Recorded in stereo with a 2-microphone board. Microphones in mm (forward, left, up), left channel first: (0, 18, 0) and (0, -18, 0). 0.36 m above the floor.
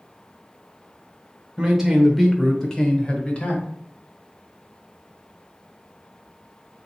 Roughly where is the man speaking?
Centre.